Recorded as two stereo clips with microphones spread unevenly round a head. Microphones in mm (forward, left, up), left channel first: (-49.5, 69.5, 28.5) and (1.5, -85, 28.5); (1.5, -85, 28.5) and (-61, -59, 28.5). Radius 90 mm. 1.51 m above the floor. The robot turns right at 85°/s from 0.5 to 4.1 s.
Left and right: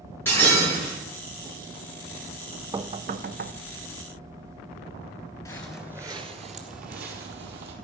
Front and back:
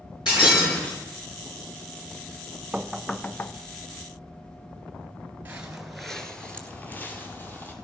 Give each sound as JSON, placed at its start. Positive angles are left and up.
{"t": 0.2, "sound": "breaking glass", "azimuth_deg": 30, "distance_m": 6.0}
{"t": 2.7, "sound": "knocking", "azimuth_deg": -130, "distance_m": 0.5}
{"t": 5.5, "sound": "footsteps", "azimuth_deg": 150, "distance_m": 1.5}